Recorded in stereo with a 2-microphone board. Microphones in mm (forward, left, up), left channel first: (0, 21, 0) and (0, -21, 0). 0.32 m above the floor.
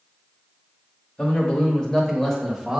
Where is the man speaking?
35° left (ahead or behind), 1.1 m; by 2.8 s 5° right (ahead or behind), 1.0 m.